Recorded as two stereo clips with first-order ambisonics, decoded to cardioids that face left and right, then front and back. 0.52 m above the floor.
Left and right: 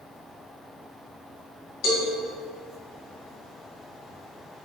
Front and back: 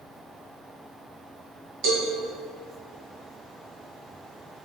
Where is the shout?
No shout in this recording.